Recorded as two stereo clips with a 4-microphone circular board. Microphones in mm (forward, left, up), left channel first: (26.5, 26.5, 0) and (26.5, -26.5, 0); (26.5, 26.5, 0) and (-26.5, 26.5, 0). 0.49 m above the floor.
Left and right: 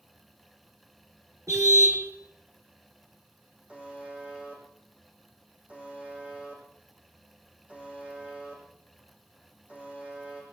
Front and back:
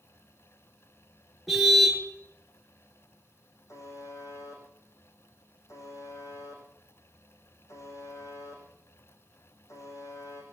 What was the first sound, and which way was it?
A car horn, 90° right.